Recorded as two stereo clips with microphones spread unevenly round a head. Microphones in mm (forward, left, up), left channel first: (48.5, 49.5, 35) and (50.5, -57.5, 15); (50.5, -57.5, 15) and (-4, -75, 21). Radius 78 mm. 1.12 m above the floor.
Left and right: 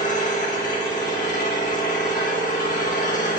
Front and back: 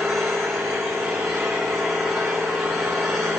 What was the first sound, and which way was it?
An engine running, 110° left.